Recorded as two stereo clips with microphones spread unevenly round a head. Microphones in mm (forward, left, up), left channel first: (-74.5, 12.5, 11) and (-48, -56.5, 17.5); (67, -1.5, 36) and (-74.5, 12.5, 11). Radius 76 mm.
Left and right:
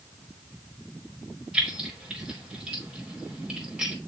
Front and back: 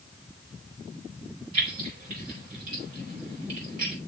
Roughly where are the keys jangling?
Behind right.